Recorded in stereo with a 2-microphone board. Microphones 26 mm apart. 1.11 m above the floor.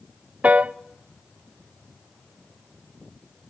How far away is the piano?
About 0.5 m.